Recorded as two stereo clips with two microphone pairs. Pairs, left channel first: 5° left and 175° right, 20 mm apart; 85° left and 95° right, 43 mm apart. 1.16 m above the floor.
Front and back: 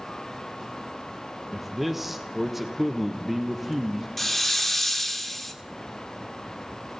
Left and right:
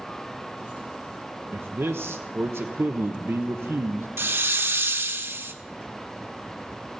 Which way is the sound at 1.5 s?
100° right.